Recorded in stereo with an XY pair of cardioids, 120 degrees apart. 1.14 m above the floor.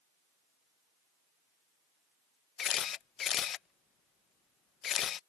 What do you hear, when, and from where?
2.6 s a camera shutter: 55° left